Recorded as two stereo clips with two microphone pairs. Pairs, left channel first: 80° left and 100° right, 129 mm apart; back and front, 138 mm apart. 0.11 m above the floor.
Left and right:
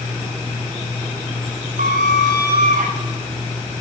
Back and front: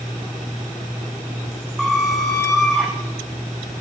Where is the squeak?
90° right, 1.2 m.